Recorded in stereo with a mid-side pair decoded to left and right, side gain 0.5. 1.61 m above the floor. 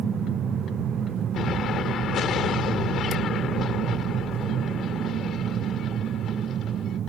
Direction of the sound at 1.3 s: 60° left.